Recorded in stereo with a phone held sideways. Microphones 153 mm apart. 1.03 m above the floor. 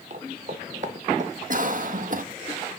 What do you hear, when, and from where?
0.1 s footsteps: 45° right (ahead or behind), 1.5 m; by 1.7 s 50° right (ahead or behind), 2 m
1.5 s a cough: 55° right (ahead or behind), 1.3 m